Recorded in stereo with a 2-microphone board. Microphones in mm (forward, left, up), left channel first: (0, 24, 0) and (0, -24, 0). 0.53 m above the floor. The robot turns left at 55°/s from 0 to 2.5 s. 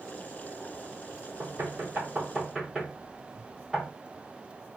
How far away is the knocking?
About 1.5 m.